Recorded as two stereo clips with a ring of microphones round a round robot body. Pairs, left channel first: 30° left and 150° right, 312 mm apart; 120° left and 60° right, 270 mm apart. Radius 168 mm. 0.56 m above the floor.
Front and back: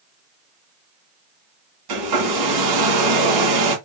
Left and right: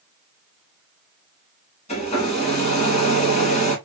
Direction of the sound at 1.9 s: 170° right.